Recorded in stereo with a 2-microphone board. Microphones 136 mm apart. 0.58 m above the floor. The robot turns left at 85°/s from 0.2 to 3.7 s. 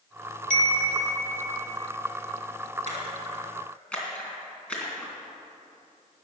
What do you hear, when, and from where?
0.5 s a chime: 70° left, 1.8 m; by 1.6 s 25° right, 1.8 m
2.9 s a splash: 65° right (ahead or behind), 3 m; by 5.1 s 10° left (ahead or behind), 3 m